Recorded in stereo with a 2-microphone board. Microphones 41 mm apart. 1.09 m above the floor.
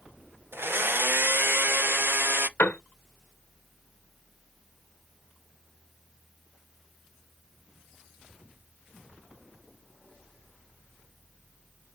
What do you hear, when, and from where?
0.5 s a blender: 60° right (ahead or behind), 0.6 m
2.6 s a piano: 55° left (ahead or behind), 1.4 m